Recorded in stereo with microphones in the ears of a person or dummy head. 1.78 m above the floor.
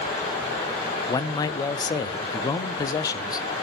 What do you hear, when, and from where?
1.1 s a man speaking: 20° left (ahead or behind), 0.5 m